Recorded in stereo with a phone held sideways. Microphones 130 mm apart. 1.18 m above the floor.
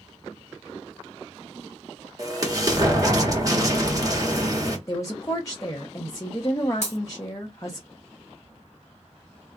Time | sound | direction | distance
2.2 | an explosion | 30° right (ahead or behind) | 1.0 m
4.9 | a woman speaking | 25° left (ahead or behind) | 0.7 m
6.8 | breaking glass | 65° left (ahead or behind) | 1.2 m